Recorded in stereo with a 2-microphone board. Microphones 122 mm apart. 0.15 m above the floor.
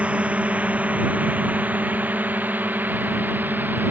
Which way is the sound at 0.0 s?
10° right (ahead or behind).